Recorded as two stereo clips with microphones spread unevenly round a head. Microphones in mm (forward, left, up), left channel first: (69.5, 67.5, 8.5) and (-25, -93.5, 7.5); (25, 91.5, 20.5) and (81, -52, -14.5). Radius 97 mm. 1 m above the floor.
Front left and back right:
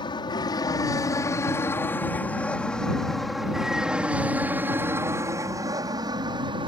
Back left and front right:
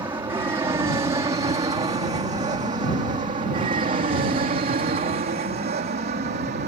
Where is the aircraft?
5° right; by 6.7 s 60° right.